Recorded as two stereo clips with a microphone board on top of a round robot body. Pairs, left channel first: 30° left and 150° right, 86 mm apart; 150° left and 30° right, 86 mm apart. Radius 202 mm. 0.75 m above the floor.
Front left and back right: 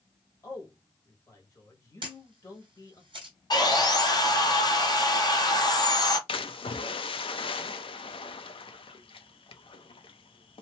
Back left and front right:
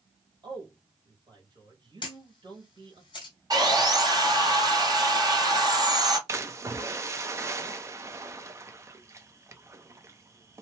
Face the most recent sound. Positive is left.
turn(degrees=25)